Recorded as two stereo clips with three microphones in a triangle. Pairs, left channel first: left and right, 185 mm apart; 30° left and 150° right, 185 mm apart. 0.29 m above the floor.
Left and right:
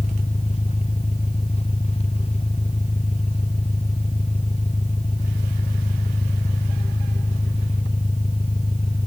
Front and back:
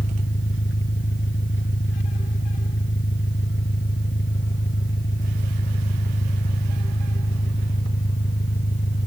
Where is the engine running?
35° left.